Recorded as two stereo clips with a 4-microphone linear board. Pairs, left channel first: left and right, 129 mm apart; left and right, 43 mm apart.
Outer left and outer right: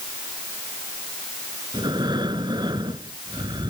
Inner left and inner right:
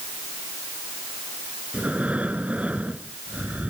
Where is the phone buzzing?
I don't hear a phone buzzing.